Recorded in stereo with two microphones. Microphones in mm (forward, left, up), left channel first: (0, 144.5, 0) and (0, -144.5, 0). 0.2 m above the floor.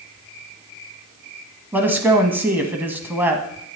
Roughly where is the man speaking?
Centre.